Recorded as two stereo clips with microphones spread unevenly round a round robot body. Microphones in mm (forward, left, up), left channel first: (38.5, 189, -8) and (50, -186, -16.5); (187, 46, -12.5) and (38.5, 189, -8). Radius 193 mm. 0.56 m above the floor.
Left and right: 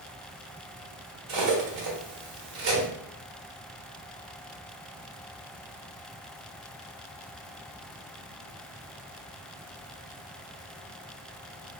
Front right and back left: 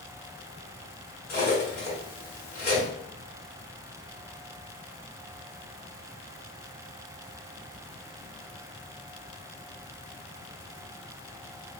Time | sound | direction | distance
1.3 | cutlery clinking | 85° right | 0.8 m